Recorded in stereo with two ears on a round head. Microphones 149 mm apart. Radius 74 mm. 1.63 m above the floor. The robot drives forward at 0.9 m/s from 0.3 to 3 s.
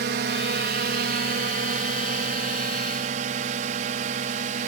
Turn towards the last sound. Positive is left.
turn(degrees=-50)  # may be behind; listen again after turning